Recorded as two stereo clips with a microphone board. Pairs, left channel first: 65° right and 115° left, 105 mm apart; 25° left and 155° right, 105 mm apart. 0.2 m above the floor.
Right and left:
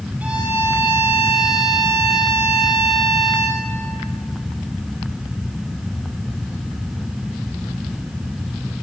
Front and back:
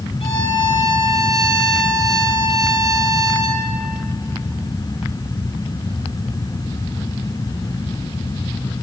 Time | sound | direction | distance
0.2 | a violin | 40° left | 6 m